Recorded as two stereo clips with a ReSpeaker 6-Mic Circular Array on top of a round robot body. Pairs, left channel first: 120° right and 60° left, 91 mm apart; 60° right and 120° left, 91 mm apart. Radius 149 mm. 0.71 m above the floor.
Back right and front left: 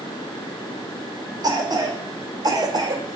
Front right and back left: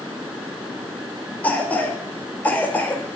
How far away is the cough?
About 3.5 m.